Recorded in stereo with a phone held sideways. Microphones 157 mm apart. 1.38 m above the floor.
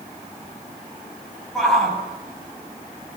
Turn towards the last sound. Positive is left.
turn(degrees=0)  # may be behind; listen again after turning